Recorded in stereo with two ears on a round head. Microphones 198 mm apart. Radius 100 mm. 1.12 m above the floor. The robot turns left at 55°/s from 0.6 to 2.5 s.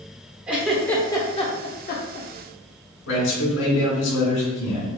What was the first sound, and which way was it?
A giggle, 5° right (ahead or behind).